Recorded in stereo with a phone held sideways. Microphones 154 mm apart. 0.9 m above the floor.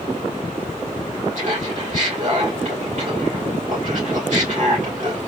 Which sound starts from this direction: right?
Laughter, at 1.4 s.